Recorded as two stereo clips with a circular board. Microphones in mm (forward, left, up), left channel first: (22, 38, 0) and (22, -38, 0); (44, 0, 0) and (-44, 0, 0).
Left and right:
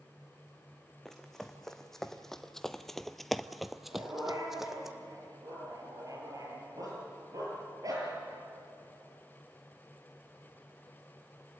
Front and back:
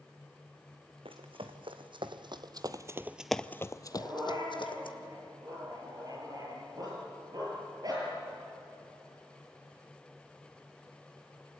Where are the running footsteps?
175° left, 2 m; by 4.9 s 5° right, 1.6 m.